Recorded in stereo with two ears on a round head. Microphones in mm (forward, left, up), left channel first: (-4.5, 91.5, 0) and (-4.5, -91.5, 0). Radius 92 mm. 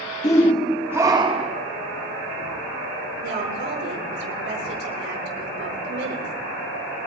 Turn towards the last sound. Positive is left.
turn(degrees=-55)  # may be behind; listen again after turning